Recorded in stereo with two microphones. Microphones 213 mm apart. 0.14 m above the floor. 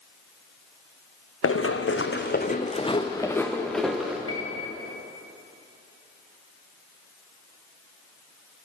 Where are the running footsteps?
85° left, 0.8 m; by 4.2 s 5° right (ahead or behind), 1.3 m.